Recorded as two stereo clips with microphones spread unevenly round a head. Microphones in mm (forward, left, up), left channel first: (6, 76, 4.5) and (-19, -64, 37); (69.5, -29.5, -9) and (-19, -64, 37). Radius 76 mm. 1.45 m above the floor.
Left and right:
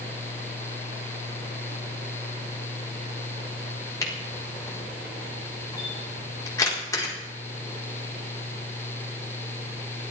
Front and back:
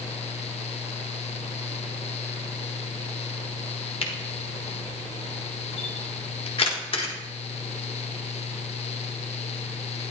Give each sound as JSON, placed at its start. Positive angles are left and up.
{"t": 4.0, "sound": "a camera shutter", "azimuth_deg": 10, "distance_m": 4.5}